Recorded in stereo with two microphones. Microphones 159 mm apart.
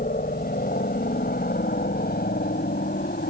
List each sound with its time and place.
0.0 s a helicopter: 65° left (ahead or behind); by 3.3 s 75° left (ahead or behind)